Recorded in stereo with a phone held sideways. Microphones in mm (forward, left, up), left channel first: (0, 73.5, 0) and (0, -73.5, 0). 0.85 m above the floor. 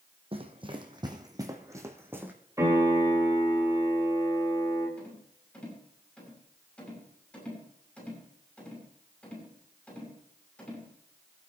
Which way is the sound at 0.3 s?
40° right (ahead or behind).